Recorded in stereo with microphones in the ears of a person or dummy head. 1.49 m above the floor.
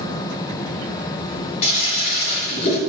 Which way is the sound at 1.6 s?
40° left (ahead or behind).